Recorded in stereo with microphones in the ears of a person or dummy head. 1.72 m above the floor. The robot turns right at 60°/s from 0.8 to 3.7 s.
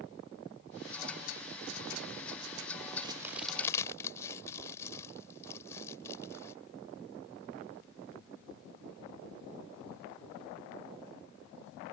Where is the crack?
25° right (ahead or behind); by 6.5 s 15° left (ahead or behind).